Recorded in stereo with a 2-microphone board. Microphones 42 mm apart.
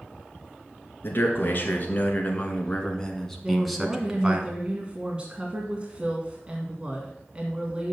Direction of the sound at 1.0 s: 50° left (ahead or behind).